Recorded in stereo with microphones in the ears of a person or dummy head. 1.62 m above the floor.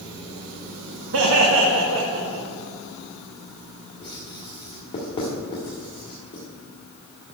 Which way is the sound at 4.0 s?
25° left (ahead or behind).